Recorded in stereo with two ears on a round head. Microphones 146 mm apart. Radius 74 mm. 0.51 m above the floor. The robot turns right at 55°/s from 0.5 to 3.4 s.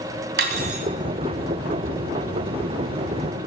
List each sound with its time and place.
0.4 s cutlery clinking: 65° right (ahead or behind), 2.5 m; by 0.9 s 45° right (ahead or behind), 2.5 m